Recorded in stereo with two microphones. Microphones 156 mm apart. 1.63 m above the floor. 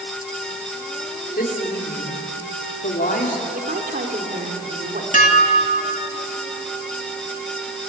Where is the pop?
No pop in this recording.